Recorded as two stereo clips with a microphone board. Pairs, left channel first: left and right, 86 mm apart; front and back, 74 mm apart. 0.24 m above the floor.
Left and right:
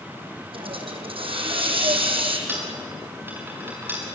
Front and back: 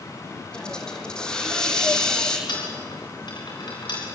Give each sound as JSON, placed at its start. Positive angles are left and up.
{"t": 0.5, "sound": "a hiss", "azimuth_deg": -80, "distance_m": 3.5}
{"t": 2.5, "sound": "a dropped coin", "azimuth_deg": -20, "distance_m": 7.5}